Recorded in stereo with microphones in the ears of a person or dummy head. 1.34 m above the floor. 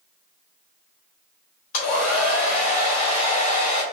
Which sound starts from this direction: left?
A hair dryer, at 1.7 s.